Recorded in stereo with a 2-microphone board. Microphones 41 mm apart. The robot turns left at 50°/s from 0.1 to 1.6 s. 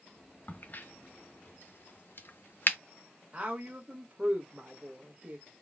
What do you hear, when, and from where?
0.5 s a crack: 40° left (ahead or behind), 0.6 m; by 2.8 s 55° left (ahead or behind), 0.6 m
3.3 s a woman speaking: 30° right (ahead or behind), 1.3 m